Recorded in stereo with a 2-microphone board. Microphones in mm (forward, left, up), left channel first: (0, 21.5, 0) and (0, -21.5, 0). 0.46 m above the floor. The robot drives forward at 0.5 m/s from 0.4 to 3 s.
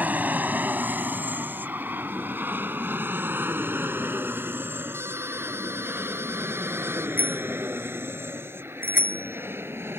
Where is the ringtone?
85° right.